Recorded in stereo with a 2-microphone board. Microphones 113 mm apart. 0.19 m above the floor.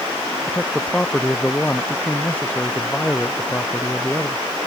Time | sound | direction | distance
0.5 | a man speaking | 5° left (ahead or behind) | ?